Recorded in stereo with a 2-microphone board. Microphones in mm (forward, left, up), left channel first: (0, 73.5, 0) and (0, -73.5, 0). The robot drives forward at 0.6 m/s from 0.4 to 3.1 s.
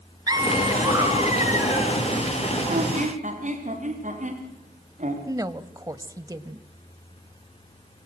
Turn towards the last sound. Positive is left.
turn(degrees=-25)  # may be behind; listen again after turning